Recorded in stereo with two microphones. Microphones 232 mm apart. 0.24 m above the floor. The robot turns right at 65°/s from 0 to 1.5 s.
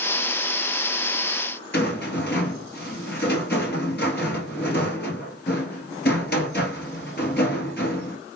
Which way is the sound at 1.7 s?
50° left (ahead or behind).